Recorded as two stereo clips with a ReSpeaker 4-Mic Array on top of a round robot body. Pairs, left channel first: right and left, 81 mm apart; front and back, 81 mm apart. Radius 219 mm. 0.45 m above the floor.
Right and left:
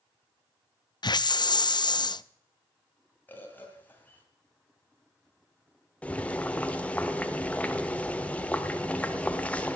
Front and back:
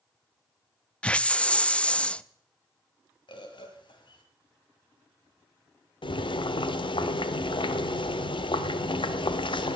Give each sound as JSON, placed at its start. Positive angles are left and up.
{"t": 1.0, "sound": "a hiss", "azimuth_deg": -75, "distance_m": 0.5}
{"t": 3.3, "sound": "a bird", "azimuth_deg": -20, "distance_m": 2.0}
{"t": 6.0, "sound": "boiling", "azimuth_deg": -15, "distance_m": 0.8}